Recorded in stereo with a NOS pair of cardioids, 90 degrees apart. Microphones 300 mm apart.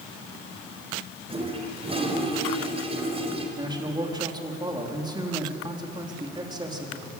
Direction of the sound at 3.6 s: 15° right.